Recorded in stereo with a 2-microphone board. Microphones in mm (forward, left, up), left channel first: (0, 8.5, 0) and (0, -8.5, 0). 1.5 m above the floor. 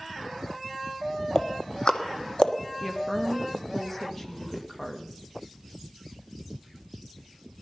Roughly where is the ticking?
Left.